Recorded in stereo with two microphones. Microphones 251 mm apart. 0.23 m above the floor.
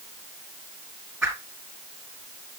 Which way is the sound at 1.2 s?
10° right (ahead or behind).